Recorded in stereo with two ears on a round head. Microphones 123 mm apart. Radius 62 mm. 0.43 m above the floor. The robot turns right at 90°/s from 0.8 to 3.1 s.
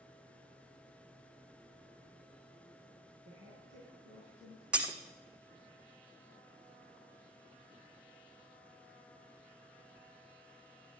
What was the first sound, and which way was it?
A woman speaking, 50° right (ahead or behind).